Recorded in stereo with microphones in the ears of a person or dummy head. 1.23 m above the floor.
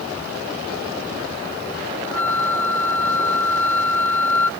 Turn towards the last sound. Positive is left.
turn(degrees=10)  # may be behind; listen again after turning